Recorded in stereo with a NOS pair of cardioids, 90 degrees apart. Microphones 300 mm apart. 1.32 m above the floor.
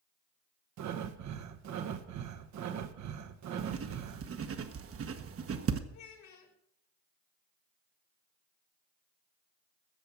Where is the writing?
50° right, 1.2 m.